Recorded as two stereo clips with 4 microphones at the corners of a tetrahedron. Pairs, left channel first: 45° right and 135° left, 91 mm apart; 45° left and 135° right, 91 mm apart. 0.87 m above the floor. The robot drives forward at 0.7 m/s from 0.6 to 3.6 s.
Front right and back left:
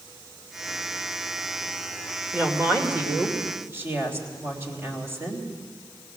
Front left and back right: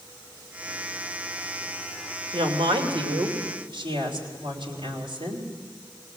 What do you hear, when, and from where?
2.3 s a woman speaking: 155° right, 2.5 m; by 5.5 s 160° right, 3.5 m